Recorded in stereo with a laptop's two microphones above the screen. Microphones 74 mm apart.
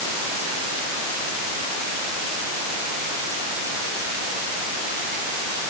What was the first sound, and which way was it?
Only background noise.